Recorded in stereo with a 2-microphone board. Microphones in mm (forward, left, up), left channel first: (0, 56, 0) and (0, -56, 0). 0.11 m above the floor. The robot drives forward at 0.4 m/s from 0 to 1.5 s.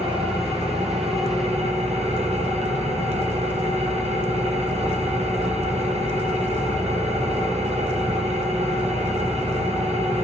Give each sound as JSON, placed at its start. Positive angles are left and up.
{"t": 0.0, "sound": "an engine running", "side_deg": -65, "distance_m": 3.0}